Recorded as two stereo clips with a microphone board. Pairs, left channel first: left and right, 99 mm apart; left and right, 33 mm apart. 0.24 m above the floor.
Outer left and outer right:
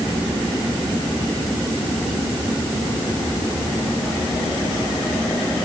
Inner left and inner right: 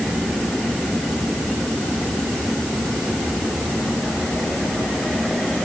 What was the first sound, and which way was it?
Only background noise.